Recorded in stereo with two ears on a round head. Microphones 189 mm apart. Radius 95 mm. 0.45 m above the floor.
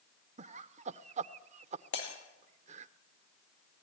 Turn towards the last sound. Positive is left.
turn(degrees=60)  # may be behind; listen again after turning